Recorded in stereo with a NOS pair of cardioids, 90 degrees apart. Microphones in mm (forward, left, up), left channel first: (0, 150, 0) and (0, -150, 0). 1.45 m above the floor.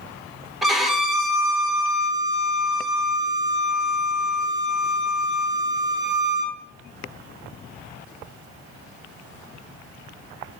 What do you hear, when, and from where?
0.6 s a violin: straight ahead, 0.6 m